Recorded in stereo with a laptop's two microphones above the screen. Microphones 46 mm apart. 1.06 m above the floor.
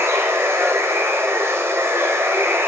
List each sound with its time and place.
0.0 s running water: 80° right, 3 m